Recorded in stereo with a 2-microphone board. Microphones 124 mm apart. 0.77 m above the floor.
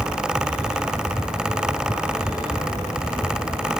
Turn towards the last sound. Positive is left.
No sound to turn to.